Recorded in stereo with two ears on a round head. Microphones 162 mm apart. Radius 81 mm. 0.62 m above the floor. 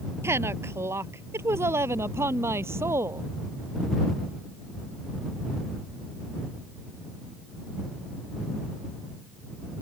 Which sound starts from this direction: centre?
A woman speaking, at 0.2 s.